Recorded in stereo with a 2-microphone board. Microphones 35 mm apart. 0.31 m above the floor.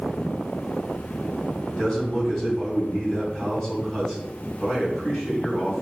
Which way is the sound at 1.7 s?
15° left (ahead or behind).